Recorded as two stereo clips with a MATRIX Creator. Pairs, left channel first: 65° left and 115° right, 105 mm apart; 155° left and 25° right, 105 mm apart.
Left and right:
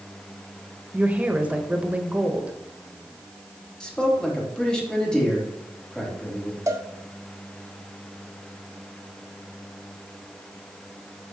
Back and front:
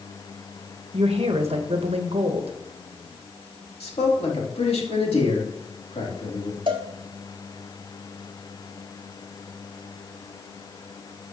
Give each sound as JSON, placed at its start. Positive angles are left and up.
{"t": 0.9, "sound": "a woman speaking", "azimuth_deg": -35, "distance_m": 1.0}
{"t": 3.8, "sound": "a man speaking", "azimuth_deg": 150, "distance_m": 2.5}
{"t": 6.7, "sound": "a cowbell", "azimuth_deg": -60, "distance_m": 1.1}